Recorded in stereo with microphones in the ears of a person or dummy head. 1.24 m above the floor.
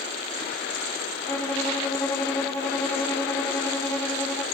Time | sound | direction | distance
1.3 | a violin | 15° left (ahead or behind) | 3.5 m